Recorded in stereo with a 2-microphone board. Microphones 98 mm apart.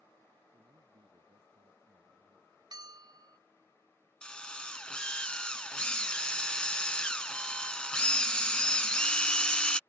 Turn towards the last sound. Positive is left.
turn(degrees=10)  # may be behind; listen again after turning